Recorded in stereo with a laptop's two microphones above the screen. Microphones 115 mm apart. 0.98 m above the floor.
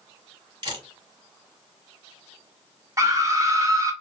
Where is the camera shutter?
40° right (ahead or behind), 2 m.